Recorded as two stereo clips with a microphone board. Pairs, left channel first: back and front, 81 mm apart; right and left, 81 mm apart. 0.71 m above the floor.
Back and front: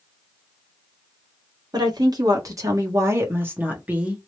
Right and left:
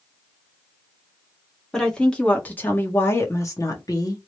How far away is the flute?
I don't hear a flute.